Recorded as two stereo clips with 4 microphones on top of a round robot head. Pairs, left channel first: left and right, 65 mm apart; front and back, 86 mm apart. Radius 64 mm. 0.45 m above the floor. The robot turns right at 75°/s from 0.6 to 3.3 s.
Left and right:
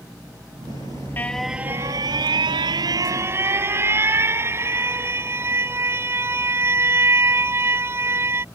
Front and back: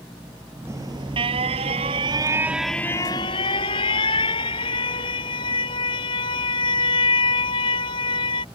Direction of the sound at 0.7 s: 125° left.